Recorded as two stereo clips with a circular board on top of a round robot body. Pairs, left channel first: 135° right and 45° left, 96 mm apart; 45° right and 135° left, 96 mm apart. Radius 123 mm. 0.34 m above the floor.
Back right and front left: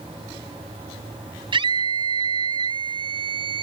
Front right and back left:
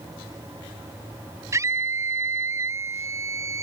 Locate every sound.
1.5 s a scream: 75° left